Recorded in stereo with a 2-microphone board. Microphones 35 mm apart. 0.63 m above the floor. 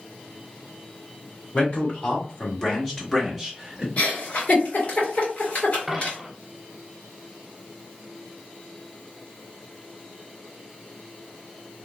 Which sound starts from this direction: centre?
A dropped coin, at 5.9 s.